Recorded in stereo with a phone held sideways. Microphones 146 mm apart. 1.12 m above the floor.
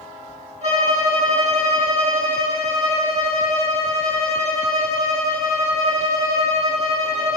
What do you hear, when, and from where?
0.6 s a violin: 65° right (ahead or behind), 3 m